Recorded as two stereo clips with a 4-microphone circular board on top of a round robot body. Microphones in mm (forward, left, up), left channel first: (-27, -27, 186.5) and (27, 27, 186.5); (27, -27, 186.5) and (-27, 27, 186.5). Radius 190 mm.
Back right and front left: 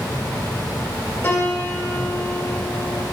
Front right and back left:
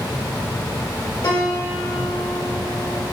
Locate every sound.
1.2 s a piano: 75° right, 2.5 m